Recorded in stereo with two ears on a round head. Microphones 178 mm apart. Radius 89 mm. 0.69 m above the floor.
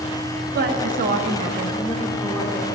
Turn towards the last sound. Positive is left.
turn(degrees=5)  # may be behind; listen again after turning